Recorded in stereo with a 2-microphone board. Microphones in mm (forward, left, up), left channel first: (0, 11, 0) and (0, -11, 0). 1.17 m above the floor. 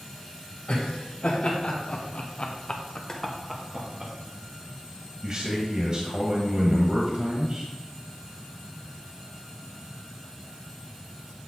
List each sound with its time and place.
0.7 s laughter: 70° left (ahead or behind), 2.5 m; by 4.1 s 35° right (ahead or behind), 1.3 m
3.1 s boiling: 30° left (ahead or behind), 1.1 m
5.2 s a man speaking: 40° right (ahead or behind), 1.4 m